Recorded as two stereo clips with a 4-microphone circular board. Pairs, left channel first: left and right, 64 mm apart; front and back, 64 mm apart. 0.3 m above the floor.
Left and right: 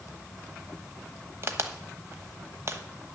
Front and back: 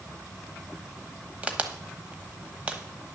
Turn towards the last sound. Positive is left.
turn(degrees=-115)